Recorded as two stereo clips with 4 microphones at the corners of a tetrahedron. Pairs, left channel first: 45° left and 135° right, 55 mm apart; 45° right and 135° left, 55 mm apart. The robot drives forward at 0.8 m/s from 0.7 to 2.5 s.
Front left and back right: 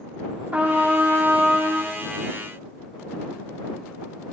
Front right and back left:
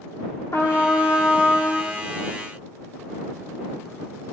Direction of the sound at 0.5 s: 70° right.